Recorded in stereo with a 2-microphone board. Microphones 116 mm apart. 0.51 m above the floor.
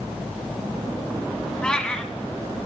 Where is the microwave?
I don't hear a microwave.